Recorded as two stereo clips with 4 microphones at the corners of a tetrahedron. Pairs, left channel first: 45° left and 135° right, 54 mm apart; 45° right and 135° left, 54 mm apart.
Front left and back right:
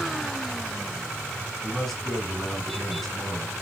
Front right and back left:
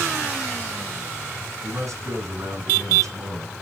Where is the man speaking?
135° left, 3.5 m.